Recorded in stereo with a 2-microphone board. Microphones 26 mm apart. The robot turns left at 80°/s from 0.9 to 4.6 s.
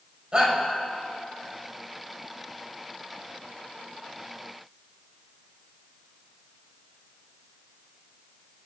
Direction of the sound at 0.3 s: 40° right (ahead or behind).